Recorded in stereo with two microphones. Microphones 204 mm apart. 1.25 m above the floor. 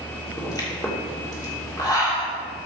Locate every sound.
0.4 s a pop: 15° left (ahead or behind), 2.5 m